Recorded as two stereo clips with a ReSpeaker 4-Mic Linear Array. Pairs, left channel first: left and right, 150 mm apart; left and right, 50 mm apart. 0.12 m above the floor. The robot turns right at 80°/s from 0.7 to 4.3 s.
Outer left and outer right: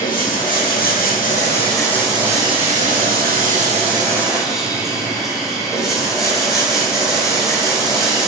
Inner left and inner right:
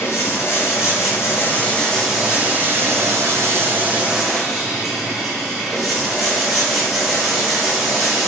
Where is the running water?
70° left, 0.8 m; by 8.3 s straight ahead, 0.8 m.